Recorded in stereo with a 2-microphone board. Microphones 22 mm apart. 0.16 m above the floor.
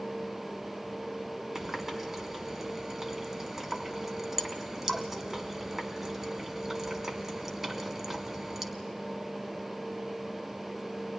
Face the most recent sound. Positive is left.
turn(degrees=-20)  # may be behind; listen again after turning